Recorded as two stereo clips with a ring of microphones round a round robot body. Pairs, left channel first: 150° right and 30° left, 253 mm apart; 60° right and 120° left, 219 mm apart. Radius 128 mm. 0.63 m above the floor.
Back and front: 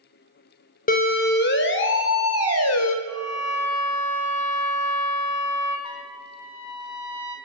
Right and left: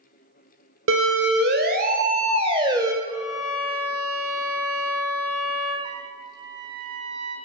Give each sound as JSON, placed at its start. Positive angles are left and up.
{"t": 0.9, "sound": "a siren", "azimuth_deg": 155, "distance_m": 2.5}
{"t": 3.0, "sound": "a violin", "azimuth_deg": 170, "distance_m": 9.0}
{"t": 5.8, "sound": "a trumpet", "azimuth_deg": -170, "distance_m": 3.0}